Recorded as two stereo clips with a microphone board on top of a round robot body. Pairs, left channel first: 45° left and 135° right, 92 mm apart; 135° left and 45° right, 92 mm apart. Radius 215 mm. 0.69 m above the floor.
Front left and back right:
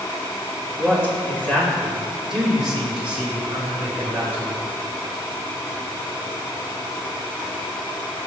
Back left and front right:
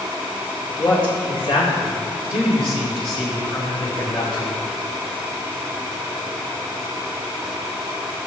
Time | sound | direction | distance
0.8 | a man speaking | 110° left | 3.5 m